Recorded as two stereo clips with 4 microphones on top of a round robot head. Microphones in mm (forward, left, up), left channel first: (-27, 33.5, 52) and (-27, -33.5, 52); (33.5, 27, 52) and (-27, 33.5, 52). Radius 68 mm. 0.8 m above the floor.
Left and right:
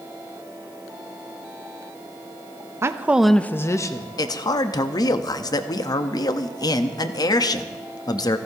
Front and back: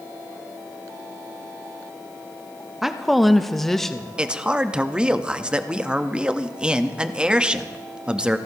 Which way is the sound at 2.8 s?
105° right.